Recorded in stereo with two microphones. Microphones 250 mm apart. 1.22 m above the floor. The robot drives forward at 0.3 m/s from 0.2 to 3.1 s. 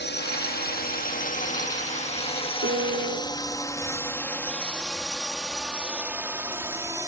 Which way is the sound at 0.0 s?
45° left (ahead or behind).